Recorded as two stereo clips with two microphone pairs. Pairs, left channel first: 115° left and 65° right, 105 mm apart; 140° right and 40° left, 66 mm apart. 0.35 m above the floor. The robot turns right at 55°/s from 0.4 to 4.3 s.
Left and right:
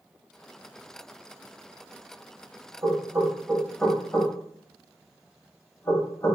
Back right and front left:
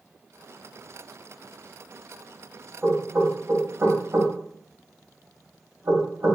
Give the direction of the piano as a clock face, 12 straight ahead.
I don't hear a piano.